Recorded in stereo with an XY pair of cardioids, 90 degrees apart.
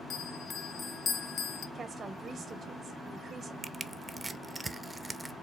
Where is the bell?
50° left, 0.5 m.